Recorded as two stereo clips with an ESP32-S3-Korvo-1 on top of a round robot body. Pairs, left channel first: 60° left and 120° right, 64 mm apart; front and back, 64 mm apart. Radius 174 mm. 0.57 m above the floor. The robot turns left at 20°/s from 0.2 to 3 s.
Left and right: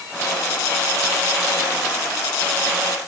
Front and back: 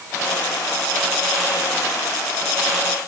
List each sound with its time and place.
Only background noise.